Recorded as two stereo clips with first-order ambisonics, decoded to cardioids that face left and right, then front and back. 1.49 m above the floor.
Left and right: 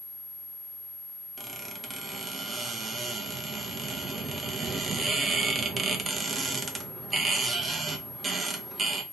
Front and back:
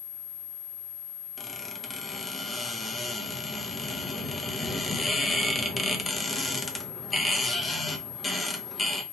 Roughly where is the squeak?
Ahead right.